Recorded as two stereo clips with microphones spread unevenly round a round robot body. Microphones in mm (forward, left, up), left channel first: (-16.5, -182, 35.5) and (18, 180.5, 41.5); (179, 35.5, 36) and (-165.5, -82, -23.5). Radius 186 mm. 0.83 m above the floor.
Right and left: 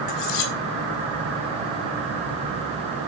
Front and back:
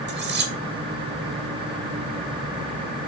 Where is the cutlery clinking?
100° right, 2.5 m.